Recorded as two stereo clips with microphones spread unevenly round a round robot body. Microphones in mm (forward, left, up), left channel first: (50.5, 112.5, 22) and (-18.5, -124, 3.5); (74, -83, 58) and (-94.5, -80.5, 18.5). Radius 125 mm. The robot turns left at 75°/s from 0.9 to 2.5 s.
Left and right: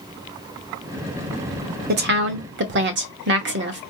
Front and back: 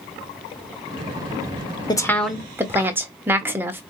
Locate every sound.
1.9 s a woman speaking: 75° right, 1.1 m; by 3.8 s 120° right, 1.1 m